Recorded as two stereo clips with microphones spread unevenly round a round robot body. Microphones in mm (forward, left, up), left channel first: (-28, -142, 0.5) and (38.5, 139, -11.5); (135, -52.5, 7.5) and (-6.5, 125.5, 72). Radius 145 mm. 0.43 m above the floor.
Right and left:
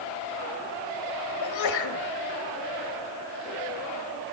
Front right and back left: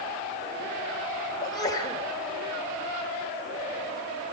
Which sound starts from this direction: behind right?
A sneeze, at 1.4 s.